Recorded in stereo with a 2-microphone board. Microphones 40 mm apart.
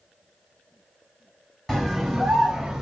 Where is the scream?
5° left (ahead or behind), 1.2 m; by 2.8 s 5° right (ahead or behind), 1.2 m.